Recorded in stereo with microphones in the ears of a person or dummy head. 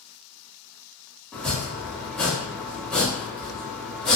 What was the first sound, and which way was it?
Chopping, 5° left (ahead or behind).